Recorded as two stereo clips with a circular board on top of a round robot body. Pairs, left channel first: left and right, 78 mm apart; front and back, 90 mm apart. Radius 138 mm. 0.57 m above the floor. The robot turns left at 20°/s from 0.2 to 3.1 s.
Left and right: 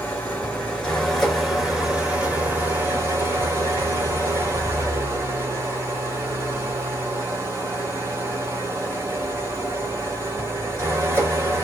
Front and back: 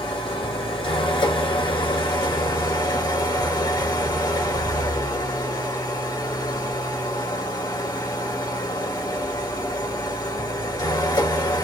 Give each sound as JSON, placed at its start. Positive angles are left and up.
{"t": 0.0, "sound": "an engine running", "azimuth_deg": 25, "distance_m": 1.9}